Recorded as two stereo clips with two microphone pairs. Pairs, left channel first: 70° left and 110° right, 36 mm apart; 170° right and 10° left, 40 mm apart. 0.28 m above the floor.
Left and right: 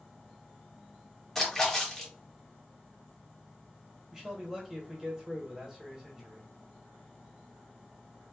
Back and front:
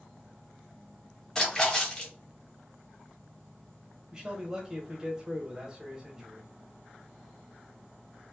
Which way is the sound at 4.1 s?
45° right.